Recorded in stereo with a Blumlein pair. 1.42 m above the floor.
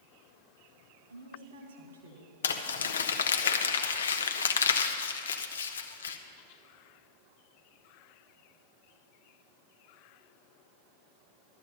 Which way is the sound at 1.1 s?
65° right.